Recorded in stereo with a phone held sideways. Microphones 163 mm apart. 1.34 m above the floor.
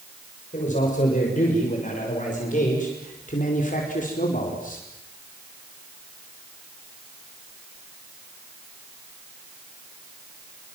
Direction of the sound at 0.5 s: 50° left (ahead or behind).